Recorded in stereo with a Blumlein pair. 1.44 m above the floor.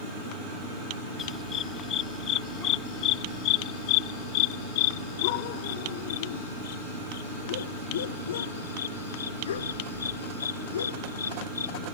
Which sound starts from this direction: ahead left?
A dog barking, at 1.2 s.